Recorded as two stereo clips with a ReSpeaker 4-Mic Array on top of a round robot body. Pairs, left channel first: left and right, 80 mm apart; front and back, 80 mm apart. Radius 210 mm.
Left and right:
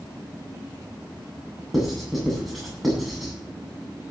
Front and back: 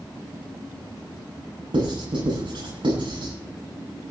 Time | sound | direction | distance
1.7 | writing | straight behind | 8.5 m